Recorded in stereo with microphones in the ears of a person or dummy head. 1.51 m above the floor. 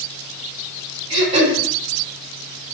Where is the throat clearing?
30° right (ahead or behind), 1.5 m.